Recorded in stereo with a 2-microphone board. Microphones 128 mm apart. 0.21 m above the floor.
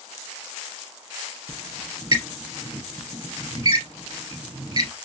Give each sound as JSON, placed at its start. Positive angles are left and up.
{"t": 1.5, "sound": "a squeak", "side_deg": -30, "distance_m": 2.0}